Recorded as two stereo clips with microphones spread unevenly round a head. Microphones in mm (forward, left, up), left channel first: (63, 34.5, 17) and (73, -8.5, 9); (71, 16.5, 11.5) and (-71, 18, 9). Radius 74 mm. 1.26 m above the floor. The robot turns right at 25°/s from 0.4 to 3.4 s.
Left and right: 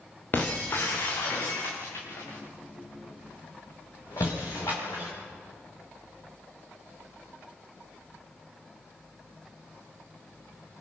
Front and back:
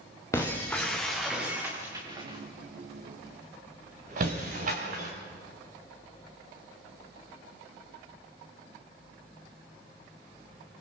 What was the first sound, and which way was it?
Breaking glass, 70° left.